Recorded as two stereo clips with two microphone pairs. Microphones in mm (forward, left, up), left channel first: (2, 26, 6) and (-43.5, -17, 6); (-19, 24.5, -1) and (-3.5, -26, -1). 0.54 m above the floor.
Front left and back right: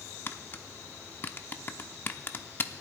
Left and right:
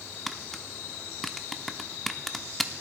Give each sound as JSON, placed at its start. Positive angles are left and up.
{"t": 0.3, "sound": "tapping", "azimuth_deg": 20, "distance_m": 0.8}